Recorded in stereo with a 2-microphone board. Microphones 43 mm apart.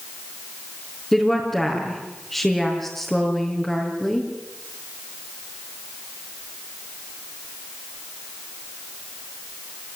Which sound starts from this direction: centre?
A woman speaking, at 1.1 s.